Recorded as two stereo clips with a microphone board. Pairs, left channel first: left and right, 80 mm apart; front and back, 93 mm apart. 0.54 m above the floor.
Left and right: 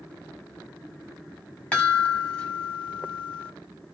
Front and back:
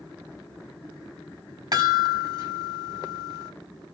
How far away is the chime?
About 1.8 m.